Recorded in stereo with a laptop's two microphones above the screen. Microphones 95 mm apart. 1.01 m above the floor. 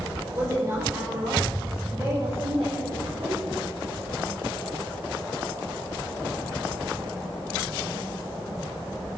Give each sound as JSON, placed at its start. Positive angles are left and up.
{"t": 0.3, "sound": "a woman speaking", "side_deg": -40, "distance_m": 3.0}